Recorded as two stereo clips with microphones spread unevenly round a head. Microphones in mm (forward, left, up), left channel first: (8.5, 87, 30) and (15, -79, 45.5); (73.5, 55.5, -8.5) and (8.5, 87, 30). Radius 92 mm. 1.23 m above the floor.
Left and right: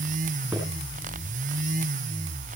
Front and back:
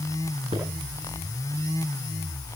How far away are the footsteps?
About 10 m.